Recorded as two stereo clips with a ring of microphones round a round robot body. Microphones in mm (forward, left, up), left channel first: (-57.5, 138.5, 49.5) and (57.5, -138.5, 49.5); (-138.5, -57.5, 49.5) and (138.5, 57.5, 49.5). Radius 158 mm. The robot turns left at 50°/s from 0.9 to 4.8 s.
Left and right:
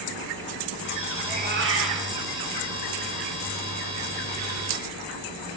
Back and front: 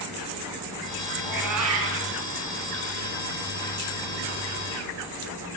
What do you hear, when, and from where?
1.2 s a cat meowing: 5° left, 3.5 m; by 2.1 s 35° right, 3.5 m